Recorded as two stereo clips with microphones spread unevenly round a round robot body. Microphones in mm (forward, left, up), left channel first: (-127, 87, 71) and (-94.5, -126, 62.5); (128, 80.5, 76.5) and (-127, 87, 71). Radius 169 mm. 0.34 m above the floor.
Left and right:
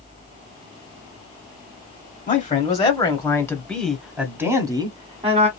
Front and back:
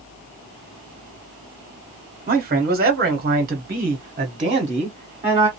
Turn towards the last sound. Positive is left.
turn(degrees=-120)